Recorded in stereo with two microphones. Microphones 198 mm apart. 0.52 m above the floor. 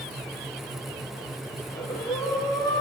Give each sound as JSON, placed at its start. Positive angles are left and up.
{"t": 1.6, "sound": "breathing", "side_deg": 20, "distance_m": 3.0}